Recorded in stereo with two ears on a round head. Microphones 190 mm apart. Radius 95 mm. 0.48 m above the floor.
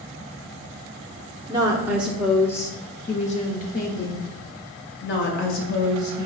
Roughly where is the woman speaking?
Right.